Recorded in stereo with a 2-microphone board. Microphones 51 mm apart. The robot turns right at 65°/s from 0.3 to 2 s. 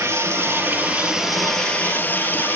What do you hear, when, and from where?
0.0 s running water: 70° right, 3.5 m; by 2.6 s 40° left, 3.5 m